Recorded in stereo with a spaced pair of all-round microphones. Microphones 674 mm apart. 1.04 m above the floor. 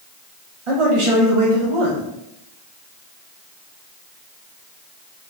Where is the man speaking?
45° right (ahead or behind), 1.3 m.